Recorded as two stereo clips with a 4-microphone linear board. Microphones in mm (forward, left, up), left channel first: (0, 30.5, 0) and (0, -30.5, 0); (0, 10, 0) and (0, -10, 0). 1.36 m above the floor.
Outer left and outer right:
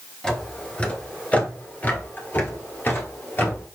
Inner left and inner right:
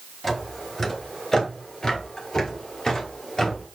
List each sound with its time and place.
0.2 s footsteps: 10° left (ahead or behind), 1.3 m; by 3.7 s 35° left (ahead or behind), 2 m